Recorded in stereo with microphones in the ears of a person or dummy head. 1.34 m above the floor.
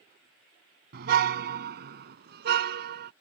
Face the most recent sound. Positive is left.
turn(degrees=-60)  # may be behind; listen again after turning